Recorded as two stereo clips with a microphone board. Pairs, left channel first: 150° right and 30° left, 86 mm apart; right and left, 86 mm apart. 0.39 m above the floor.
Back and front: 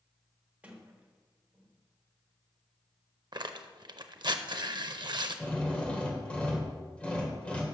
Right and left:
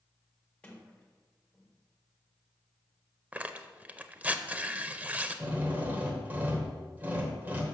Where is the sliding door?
25° right, 1.3 m.